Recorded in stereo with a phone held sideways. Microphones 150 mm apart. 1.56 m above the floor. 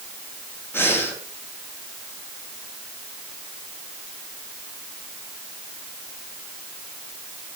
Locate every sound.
0.7 s breathing: 15° left (ahead or behind), 3.5 m